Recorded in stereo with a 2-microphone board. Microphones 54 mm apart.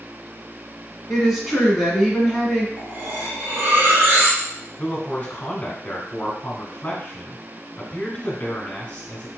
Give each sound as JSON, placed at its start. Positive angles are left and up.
{"t": 1.1, "sound": "a woman speaking", "side_deg": -10, "distance_m": 1.4}
{"t": 2.8, "sound": "cutlery clinking", "side_deg": -50, "distance_m": 1.2}
{"t": 4.8, "sound": "a man speaking", "side_deg": 30, "distance_m": 1.3}